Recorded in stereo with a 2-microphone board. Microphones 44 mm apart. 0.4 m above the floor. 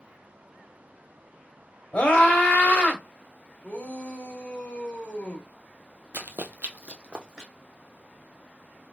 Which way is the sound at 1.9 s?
40° left (ahead or behind).